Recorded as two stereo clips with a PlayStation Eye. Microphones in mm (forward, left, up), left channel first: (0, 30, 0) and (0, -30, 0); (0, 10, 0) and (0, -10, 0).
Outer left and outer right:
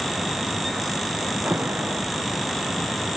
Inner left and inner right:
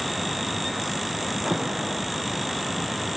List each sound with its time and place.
1.4 s an alarm: 30° right (ahead or behind)